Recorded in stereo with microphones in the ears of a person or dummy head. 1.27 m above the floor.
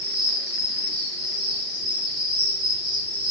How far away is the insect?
About 0.8 m.